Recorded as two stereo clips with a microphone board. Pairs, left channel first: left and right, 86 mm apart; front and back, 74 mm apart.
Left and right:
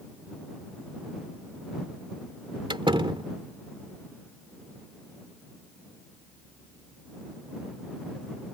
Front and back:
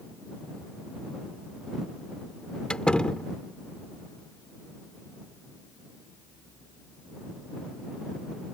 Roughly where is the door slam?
Right.